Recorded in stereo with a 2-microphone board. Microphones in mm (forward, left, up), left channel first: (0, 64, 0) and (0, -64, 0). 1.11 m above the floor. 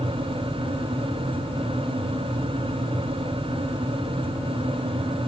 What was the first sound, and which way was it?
Only background noise.